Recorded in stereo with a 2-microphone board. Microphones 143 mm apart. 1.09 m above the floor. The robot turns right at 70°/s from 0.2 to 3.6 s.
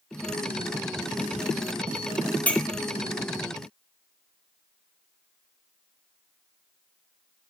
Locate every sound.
2.5 s a clink: 10° left (ahead or behind), 2.5 m; by 2.6 s centre (ahead or behind), 2.5 m